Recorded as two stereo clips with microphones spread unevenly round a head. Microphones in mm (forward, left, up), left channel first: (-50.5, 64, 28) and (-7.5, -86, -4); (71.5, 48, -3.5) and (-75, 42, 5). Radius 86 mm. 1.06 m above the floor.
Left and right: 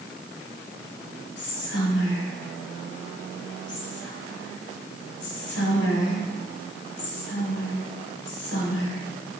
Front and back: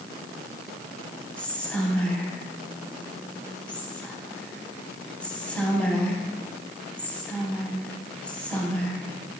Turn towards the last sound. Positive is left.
turn(degrees=85)